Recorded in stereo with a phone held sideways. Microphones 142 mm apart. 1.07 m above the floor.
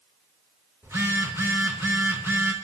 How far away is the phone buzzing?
About 2.5 m.